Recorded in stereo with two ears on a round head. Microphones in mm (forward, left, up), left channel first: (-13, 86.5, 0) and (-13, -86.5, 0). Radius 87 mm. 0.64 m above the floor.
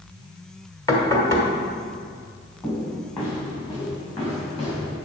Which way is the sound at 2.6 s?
20° left (ahead or behind).